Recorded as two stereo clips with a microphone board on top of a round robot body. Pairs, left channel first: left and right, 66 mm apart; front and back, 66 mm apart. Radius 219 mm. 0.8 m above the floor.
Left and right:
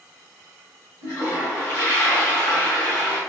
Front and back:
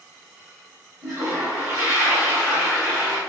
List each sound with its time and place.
1.0 s a toilet flushing: 135° left, 1.6 m